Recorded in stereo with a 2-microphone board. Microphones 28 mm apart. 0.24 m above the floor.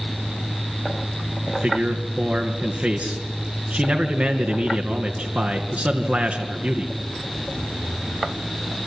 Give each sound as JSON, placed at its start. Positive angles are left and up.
{"t": 1.5, "sound": "a man speaking", "side_deg": -65, "distance_m": 2.5}